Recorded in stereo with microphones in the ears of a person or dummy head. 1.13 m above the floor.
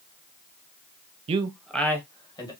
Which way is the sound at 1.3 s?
35° right (ahead or behind).